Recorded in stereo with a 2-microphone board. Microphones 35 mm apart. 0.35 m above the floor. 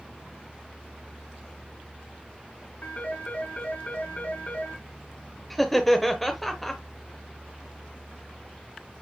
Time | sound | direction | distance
2.8 | a phone ringing | 50° left (ahead or behind) | 2 m
5.5 | laughter | centre (ahead or behind) | 0.9 m